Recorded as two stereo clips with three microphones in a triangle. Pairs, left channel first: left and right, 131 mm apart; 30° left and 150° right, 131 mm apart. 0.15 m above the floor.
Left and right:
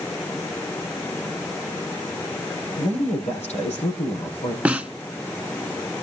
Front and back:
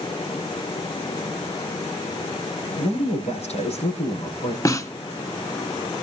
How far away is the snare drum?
About 0.9 m.